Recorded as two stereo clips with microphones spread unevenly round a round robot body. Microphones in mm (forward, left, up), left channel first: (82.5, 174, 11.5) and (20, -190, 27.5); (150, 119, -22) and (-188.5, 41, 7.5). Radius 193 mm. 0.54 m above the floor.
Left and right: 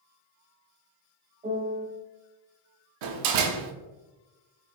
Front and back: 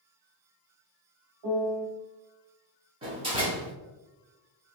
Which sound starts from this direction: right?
A door slam, at 3.0 s.